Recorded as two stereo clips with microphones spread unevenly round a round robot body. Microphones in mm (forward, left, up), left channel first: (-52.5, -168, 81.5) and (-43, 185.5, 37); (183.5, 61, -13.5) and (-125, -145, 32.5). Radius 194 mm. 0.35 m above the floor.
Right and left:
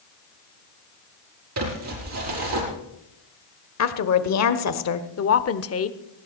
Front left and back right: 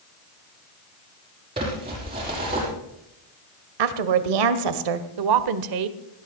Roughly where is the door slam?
I don't hear a door slam.